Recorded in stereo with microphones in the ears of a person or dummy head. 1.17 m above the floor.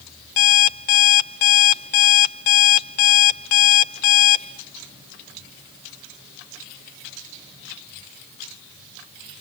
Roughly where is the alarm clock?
Left.